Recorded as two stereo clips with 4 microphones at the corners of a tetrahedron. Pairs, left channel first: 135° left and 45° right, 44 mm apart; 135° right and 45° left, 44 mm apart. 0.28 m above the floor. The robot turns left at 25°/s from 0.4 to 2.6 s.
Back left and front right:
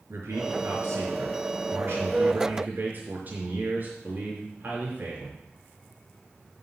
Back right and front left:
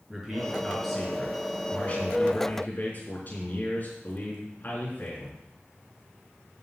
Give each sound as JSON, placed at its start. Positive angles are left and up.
{"t": 0.1, "sound": "a man speaking", "azimuth_deg": -35, "distance_m": 4.5}